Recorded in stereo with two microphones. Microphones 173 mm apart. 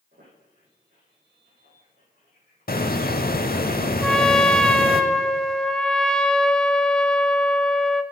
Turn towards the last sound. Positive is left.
turn(degrees=5)  # may be behind; listen again after turning